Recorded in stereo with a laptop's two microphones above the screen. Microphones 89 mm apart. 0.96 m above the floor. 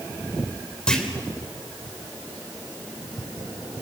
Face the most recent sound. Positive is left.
turn(degrees=10)  # may be behind; listen again after turning